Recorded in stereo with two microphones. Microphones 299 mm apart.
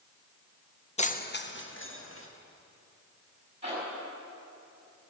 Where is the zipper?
25° right (ahead or behind), 5.5 m.